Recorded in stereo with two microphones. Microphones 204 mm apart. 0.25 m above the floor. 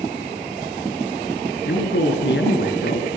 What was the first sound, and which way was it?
A man speaking, 65° left (ahead or behind).